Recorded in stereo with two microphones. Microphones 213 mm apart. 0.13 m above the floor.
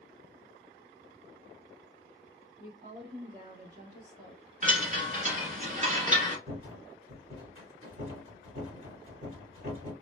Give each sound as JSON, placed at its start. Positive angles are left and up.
{"t": 2.6, "sound": "a woman speaking", "side_deg": -35, "distance_m": 1.7}
{"t": 4.6, "sound": "a chime", "side_deg": -35, "distance_m": 1.1}
{"t": 6.5, "sound": "a rattle", "side_deg": -30, "distance_m": 1.9}